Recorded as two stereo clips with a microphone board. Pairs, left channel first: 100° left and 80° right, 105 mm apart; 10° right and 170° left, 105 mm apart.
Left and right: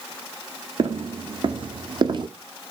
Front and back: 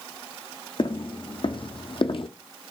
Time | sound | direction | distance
0.8 | footsteps | 45° right | 1.8 m